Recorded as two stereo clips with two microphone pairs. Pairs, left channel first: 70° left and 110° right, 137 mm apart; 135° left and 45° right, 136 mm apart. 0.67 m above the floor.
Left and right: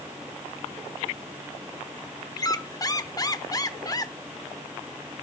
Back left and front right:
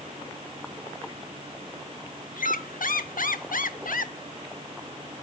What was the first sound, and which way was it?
A squeak, 130° left.